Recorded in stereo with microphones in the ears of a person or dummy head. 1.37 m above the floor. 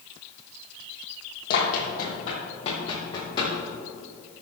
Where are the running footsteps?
50° left (ahead or behind), 3.5 m; by 3.5 s 20° left (ahead or behind), 5 m.